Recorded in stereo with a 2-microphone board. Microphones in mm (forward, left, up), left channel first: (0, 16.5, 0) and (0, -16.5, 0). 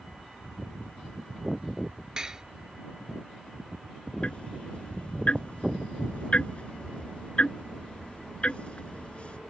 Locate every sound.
2.2 s dishes clattering: 20° right (ahead or behind)
4.2 s ticking: 40° left (ahead or behind)